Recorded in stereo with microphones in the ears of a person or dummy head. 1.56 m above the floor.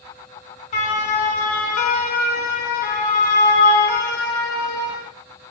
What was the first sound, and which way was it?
A siren, 40° left (ahead or behind).